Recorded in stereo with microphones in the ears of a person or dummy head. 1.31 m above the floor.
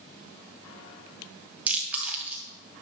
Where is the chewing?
10° right (ahead or behind), 2.5 m.